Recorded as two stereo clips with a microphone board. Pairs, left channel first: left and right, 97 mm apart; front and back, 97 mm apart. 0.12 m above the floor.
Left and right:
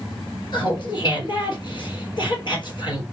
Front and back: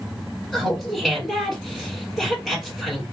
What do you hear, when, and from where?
0.5 s laughter: 95° left, 2.5 m